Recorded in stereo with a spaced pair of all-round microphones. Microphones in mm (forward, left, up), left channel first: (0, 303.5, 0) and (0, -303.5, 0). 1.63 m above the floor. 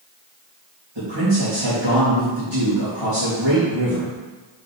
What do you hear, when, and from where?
0.9 s a man speaking: 50° right (ahead or behind), 3.5 m